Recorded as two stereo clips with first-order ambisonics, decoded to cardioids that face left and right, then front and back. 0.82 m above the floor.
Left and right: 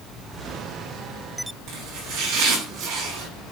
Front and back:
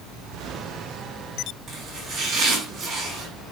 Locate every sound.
1.7 s chopping: 110° right, 4.5 m